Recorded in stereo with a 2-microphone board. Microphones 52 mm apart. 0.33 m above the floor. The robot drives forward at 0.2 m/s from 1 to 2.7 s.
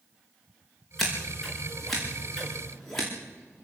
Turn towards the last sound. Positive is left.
turn(degrees=5)  # may be behind; listen again after turning